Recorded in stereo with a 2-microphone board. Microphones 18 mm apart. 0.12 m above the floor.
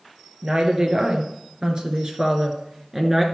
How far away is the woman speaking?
About 2.5 m.